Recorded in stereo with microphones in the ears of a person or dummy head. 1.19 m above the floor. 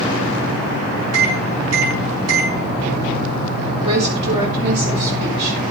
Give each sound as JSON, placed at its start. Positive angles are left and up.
{"t": 1.1, "sound": "a microwave", "side_deg": -80, "distance_m": 9.0}
{"t": 3.8, "sound": "a woman speaking", "side_deg": -35, "distance_m": 5.5}